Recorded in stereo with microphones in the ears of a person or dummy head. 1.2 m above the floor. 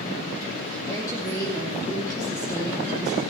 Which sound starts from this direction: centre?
A woman speaking, at 0.9 s.